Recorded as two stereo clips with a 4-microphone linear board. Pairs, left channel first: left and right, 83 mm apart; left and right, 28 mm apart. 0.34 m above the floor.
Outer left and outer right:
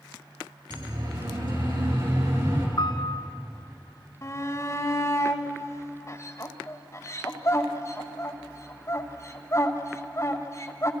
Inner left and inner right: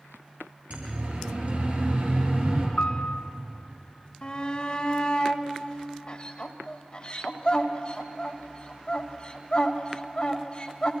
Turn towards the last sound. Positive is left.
turn(degrees=40)  # may be behind; listen again after turning